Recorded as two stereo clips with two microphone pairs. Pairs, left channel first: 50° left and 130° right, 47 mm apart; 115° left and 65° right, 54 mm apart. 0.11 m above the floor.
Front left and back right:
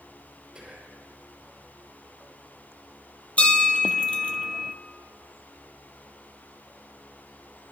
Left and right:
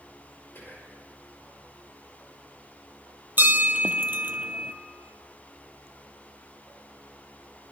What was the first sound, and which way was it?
Whispering, 155° left.